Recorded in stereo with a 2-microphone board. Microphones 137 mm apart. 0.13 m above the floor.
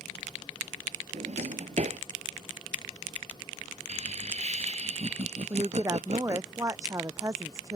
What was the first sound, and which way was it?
A drawer, 60° right (ahead or behind).